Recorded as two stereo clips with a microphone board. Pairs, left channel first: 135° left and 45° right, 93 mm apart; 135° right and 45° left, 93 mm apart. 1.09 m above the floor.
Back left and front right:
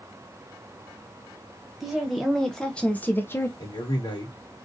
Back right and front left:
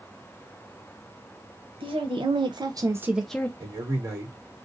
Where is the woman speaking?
45° left, 1.2 m; by 3.5 s 175° left, 0.5 m.